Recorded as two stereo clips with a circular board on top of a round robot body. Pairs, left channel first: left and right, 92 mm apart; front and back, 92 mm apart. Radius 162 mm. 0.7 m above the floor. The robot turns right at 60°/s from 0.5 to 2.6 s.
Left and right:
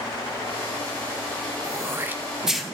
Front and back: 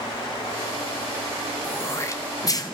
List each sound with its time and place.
1.6 s throat clearing: 60° right, 0.9 m; by 2.7 s straight ahead, 0.9 m